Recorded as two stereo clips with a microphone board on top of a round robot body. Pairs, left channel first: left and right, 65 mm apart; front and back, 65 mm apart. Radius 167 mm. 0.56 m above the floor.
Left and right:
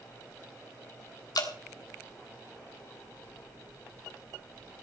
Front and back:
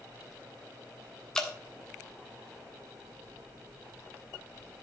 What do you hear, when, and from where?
1.4 s dripping: 80° left, 2.5 m